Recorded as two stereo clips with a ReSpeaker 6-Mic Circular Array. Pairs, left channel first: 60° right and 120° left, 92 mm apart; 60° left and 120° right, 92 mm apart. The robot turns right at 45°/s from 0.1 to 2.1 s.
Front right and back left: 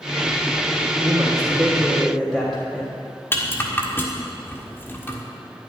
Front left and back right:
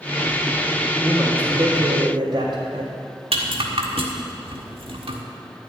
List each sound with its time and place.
1.0 s a man speaking: 170° left, 3.5 m; by 2.9 s 145° right, 3.5 m
3.3 s a rattle: 125° right, 1.6 m